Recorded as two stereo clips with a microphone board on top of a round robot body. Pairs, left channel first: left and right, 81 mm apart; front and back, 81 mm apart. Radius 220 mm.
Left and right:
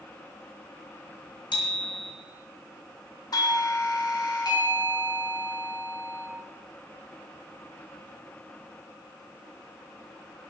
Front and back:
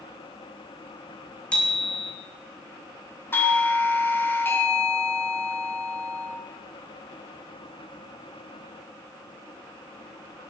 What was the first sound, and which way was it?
A bicycle bell, 75° left.